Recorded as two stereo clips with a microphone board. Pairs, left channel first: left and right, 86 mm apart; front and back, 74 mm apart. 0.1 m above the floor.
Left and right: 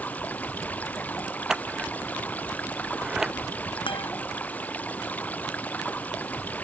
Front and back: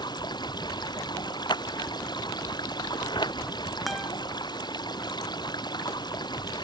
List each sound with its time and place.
0.0 s running water: 20° left
1.5 s scissors: 5° right
3.9 s a guitar: 90° left